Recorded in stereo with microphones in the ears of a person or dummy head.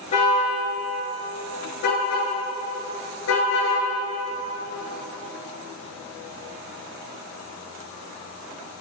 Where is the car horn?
45° left (ahead or behind), 8 m; by 3.8 s 85° left, 8.5 m.